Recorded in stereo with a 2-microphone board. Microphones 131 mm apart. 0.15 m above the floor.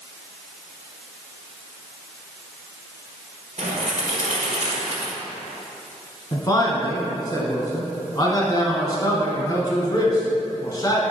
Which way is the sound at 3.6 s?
65° right (ahead or behind).